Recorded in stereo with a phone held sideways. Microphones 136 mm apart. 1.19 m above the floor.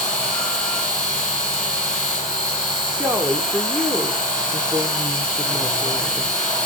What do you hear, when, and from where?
0.0 s a machine running: 5° left (ahead or behind), 8 m
3.0 s a woman speaking: 15° right (ahead or behind), 3 m